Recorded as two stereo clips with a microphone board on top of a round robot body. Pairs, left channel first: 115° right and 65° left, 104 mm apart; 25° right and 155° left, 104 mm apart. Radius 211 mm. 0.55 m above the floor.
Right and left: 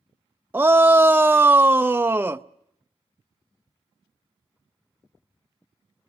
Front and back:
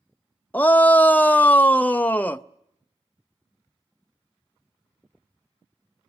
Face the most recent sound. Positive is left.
turn(degrees=30)